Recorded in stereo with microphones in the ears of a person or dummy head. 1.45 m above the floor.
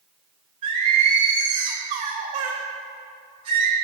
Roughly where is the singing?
Right.